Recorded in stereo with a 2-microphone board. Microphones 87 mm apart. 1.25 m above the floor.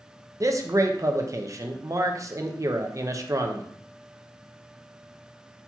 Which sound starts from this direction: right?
A man speaking, at 0.4 s.